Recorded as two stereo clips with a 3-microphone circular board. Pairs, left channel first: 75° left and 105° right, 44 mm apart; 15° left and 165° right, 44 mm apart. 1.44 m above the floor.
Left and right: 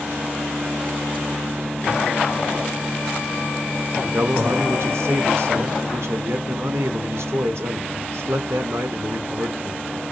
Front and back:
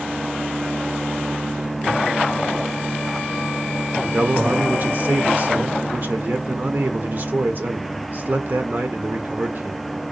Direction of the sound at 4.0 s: 120° right.